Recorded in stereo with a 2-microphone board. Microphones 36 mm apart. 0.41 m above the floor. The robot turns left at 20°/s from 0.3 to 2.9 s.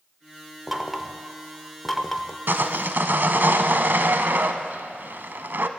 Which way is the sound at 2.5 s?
75° right (ahead or behind).